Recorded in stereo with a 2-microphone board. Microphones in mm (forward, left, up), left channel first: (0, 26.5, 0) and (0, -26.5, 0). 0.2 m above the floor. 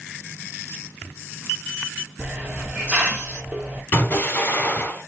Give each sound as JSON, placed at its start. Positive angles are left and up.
{"t": 2.2, "sound": "a hiss", "side_deg": -25, "distance_m": 2.0}
{"t": 3.9, "sound": "an explosion", "side_deg": 40, "distance_m": 2.5}